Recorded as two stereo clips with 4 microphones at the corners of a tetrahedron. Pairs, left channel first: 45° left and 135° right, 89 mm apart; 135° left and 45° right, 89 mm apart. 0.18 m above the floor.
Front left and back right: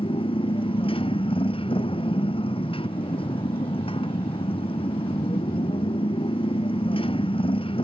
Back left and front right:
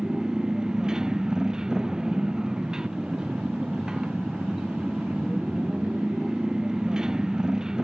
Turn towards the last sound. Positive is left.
turn(degrees=35)